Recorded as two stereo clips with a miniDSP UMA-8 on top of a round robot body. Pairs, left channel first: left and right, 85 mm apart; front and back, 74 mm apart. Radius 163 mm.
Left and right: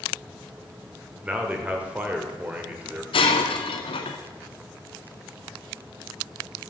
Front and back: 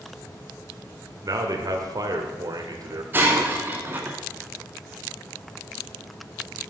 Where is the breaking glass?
115° left, 0.5 m.